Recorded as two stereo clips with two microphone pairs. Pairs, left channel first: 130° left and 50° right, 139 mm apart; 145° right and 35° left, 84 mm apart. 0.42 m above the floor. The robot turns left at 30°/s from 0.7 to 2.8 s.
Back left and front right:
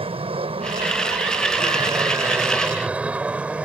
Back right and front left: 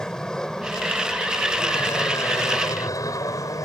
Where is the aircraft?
65° right; by 3.6 s 125° right.